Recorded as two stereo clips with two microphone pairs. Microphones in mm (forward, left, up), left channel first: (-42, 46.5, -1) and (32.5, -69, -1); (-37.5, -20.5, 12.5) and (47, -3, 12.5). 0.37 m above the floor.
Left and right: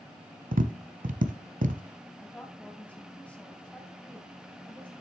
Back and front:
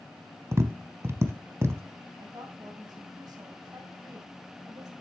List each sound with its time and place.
0.5 s tapping: 45° right, 0.7 m
2.2 s a woman speaking: 40° left, 1.9 m